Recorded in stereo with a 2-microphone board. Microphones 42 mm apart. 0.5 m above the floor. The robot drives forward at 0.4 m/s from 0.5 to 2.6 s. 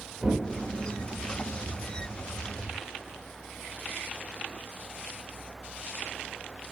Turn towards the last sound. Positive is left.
turn(degrees=-25)  # may be behind; listen again after turning